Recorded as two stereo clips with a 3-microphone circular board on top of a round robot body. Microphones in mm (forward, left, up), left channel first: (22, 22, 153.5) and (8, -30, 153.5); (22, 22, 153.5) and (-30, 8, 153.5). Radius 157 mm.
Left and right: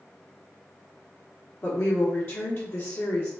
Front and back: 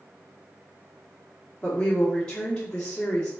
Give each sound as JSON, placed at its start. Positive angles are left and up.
{"t": 1.6, "sound": "a woman speaking", "azimuth_deg": 80, "distance_m": 1.3}